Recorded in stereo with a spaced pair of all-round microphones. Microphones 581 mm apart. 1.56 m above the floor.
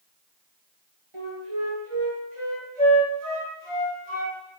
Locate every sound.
1.1 s a flute: 60° right (ahead or behind), 7 m